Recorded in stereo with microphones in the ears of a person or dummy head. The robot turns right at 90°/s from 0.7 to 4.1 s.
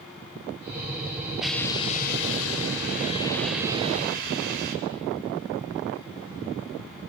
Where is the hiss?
5° right, 3.5 m; by 4.8 s 125° right, 3.5 m.